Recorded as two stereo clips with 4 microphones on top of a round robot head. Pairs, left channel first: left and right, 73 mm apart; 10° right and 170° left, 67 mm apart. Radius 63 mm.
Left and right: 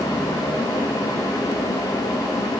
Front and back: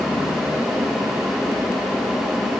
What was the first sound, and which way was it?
Only background noise.